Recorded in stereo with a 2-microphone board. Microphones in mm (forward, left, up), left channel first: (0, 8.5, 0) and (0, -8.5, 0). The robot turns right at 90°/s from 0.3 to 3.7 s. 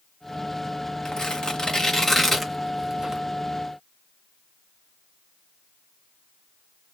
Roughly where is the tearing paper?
Left.